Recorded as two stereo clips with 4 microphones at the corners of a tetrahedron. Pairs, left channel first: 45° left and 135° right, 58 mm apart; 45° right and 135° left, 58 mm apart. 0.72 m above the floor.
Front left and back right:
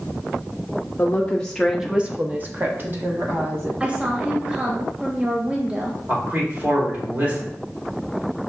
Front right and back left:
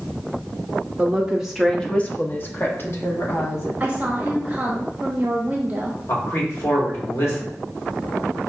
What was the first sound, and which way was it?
A woman speaking, 85° left.